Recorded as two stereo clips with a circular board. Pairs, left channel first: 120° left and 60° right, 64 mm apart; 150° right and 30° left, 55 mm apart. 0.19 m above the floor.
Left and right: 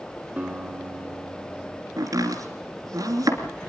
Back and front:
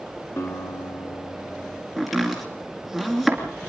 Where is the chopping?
60° right, 2.5 m.